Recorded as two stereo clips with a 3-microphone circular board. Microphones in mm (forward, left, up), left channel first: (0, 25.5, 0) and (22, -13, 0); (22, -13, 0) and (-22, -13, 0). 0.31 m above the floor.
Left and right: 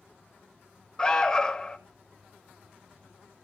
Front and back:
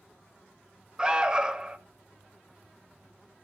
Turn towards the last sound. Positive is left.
turn(degrees=155)